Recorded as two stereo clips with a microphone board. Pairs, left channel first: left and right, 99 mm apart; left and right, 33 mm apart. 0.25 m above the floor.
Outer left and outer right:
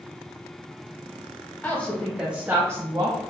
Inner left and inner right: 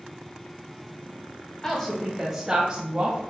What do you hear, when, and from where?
1.6 s a woman speaking: 20° left (ahead or behind), 1.5 m; by 3.2 s 40° right (ahead or behind), 1.8 m